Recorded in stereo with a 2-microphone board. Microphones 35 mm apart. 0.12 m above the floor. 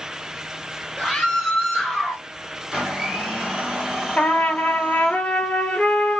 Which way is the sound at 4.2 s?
45° left (ahead or behind).